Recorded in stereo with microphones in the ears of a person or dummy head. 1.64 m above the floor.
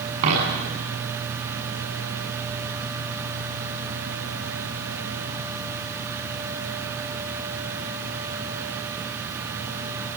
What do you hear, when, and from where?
0.2 s a dropped coin: 45° right (ahead or behind), 8 m